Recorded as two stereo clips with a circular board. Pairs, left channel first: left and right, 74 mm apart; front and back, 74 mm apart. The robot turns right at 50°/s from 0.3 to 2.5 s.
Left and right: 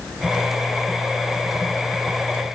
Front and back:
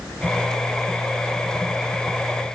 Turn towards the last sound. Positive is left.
No sound to turn to.